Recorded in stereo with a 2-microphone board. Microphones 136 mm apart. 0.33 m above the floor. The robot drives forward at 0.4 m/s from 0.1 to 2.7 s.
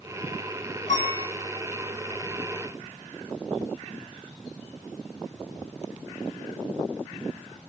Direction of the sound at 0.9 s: 65° left (ahead or behind).